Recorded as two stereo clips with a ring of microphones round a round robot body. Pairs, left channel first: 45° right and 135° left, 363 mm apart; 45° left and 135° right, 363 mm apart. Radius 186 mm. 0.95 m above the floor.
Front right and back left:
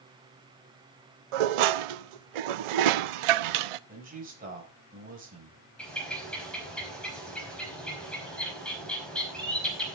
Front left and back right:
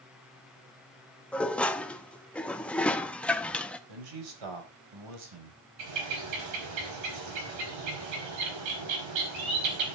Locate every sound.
1.3 s dishes clattering: 130° left, 0.6 m
3.9 s a man speaking: 155° right, 5 m
5.8 s a bird: 130° right, 5 m